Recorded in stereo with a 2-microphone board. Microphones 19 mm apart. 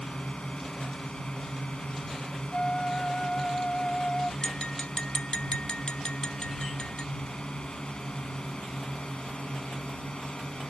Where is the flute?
40° left (ahead or behind).